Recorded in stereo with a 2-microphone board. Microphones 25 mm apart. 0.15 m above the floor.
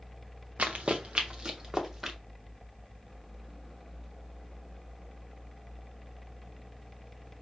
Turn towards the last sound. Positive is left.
turn(degrees=-15)  # may be behind; listen again after turning